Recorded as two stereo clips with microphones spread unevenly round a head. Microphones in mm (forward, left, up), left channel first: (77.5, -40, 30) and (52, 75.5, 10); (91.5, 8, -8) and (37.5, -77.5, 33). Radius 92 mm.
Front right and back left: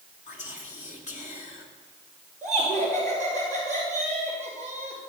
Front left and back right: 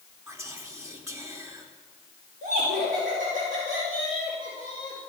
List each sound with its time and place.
0.3 s whispering: 60° right, 3 m
2.4 s laughter: 150° right, 4.5 m